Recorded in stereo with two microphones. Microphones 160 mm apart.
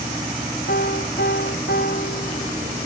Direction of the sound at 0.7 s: 85° left.